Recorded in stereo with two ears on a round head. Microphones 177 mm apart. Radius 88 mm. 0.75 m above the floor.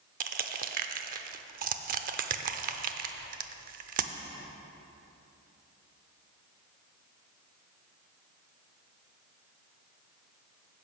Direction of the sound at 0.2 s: 45° right (ahead or behind).